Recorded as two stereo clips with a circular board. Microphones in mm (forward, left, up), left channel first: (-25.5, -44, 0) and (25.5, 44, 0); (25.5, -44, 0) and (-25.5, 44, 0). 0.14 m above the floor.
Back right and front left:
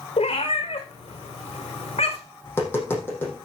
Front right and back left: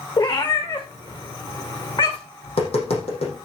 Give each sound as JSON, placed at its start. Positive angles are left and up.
{"t": 0.2, "sound": "a cat meowing", "azimuth_deg": -105, "distance_m": 2.5}
{"t": 2.4, "sound": "tapping", "azimuth_deg": -50, "distance_m": 5.5}